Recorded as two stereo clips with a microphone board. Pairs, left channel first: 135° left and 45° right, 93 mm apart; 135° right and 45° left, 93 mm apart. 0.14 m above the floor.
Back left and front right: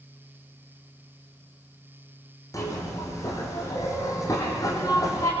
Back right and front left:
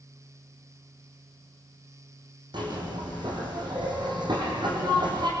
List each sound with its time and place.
2.5 s a zipper: 80° left, 6.5 m